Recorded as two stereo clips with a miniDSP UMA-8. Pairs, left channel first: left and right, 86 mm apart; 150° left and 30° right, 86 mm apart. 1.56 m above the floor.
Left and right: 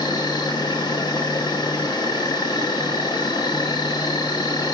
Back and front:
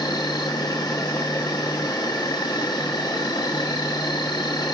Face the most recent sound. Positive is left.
turn(degrees=120)